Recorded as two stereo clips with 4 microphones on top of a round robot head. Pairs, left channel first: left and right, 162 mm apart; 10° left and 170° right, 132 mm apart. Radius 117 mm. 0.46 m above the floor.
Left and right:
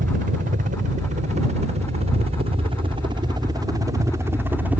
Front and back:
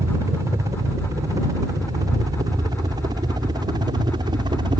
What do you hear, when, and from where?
0.0 s a helicopter: 105° right; by 4.8 s 165° right